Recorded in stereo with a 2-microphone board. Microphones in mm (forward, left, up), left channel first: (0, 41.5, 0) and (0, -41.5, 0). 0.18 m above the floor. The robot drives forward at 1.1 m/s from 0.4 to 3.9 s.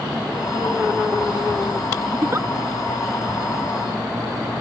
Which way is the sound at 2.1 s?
30° right (ahead or behind).